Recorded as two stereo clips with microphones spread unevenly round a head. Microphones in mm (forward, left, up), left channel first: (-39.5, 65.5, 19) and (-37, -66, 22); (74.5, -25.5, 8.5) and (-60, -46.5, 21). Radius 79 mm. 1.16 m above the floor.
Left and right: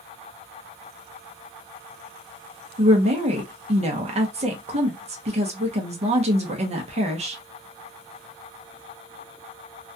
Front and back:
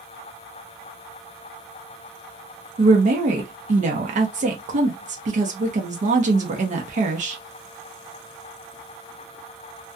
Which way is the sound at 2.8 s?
135° right.